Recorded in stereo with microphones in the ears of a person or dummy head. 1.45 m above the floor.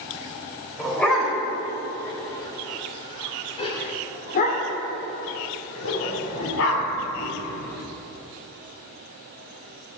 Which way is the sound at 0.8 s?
5° left (ahead or behind).